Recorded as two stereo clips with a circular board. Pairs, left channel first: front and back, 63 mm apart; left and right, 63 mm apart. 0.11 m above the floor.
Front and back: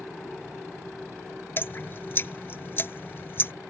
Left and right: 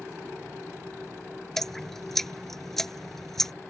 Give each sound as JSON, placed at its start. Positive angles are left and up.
{"t": 1.6, "sound": "dripping", "azimuth_deg": 10}